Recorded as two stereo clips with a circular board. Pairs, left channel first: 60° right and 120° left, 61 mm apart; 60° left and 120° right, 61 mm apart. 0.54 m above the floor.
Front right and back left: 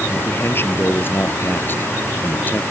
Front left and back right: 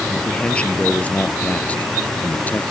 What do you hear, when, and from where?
0.1 s a man speaking: 10° right; by 2.6 s straight ahead